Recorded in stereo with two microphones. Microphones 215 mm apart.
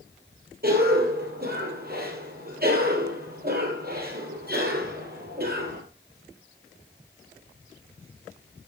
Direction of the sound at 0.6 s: 45° right (ahead or behind).